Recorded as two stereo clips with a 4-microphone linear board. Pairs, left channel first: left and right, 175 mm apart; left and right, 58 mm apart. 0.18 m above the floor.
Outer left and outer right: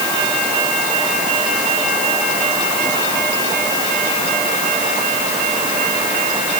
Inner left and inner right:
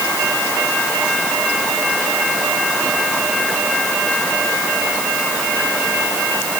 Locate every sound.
Only background noise.